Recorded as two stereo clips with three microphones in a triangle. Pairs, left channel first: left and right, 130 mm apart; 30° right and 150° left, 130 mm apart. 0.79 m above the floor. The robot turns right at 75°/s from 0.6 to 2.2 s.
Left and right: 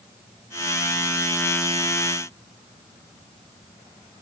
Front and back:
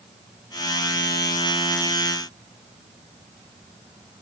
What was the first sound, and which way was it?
Only background noise.